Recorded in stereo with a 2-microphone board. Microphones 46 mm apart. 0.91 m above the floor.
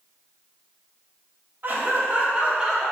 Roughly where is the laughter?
Right.